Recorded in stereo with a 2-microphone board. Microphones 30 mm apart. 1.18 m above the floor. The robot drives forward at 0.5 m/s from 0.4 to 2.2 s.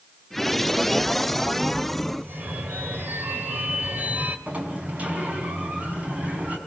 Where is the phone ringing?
75° right (ahead or behind), 3 m.